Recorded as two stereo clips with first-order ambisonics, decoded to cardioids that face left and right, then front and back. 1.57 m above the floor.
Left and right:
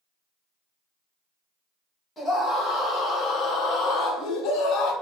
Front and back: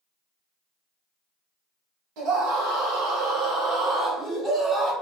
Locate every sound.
2.2 s a scream: 165° left, 1.7 m; by 4.9 s 100° left, 1.2 m